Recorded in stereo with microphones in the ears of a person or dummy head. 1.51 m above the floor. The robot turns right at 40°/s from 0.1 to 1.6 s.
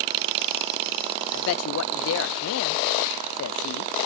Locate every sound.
1.3 s a man speaking: 70° left (ahead or behind), 0.7 m; by 3.9 s 75° left (ahead or behind), 0.7 m